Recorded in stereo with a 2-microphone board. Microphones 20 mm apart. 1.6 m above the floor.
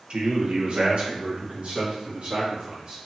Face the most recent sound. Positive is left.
turn(degrees=-60)  # may be behind; listen again after turning